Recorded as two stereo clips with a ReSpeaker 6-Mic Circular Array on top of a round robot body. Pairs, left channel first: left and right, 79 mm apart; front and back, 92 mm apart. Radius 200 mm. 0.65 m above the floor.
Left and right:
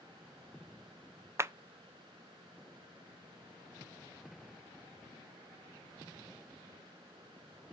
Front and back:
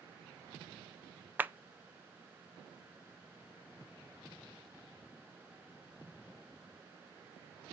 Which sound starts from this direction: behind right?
A clap, at 1.4 s.